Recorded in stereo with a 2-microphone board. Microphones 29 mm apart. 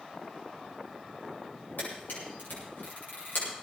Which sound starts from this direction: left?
A camera shutter, at 1.8 s.